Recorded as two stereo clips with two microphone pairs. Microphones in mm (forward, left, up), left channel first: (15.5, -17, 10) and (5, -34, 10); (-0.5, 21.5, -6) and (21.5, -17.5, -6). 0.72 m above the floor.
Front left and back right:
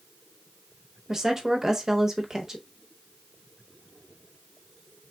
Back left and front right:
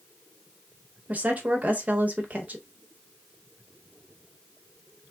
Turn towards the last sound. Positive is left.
turn(degrees=-75)